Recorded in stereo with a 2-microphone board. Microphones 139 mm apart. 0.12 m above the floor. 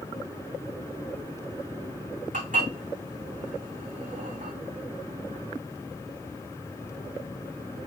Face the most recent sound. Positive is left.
turn(degrees=-75)  # may be behind; listen again after turning